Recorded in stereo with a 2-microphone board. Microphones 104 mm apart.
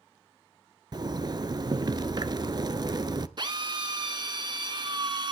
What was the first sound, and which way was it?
A zipper, 45° right (ahead or behind).